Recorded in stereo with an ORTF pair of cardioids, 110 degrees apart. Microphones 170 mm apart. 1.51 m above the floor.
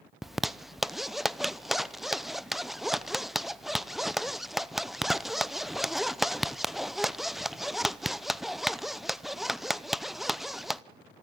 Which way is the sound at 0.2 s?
Straight ahead.